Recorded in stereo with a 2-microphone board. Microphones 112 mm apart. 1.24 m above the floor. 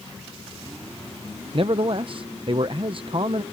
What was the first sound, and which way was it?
A man speaking, 50° right (ahead or behind).